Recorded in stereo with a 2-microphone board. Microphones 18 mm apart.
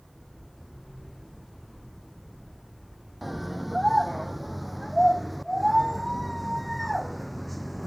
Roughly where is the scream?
Centre.